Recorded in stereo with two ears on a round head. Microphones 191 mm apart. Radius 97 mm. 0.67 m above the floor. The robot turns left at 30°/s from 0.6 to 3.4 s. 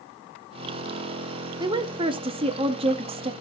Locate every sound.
1.6 s a woman speaking: 20° right (ahead or behind), 0.6 m; by 3.3 s 25° right (ahead or behind), 0.6 m